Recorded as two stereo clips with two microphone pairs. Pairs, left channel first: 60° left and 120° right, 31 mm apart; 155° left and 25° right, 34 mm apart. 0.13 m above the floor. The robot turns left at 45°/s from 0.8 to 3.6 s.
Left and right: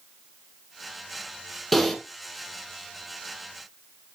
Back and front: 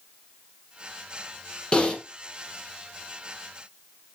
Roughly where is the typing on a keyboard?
Behind left.